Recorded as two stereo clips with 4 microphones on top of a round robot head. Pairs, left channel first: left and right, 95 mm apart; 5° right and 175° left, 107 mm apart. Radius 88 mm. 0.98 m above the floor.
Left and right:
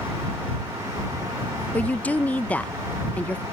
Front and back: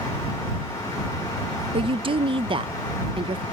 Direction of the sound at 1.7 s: 160° left.